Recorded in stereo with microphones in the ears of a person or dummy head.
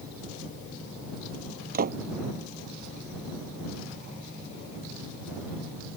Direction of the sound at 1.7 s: 45° right (ahead or behind).